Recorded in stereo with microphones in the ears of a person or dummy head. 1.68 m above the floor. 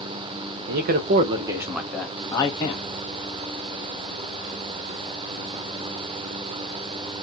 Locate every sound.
0.7 s a man speaking: 65° right (ahead or behind), 0.6 m; by 2.8 s 20° left (ahead or behind), 0.9 m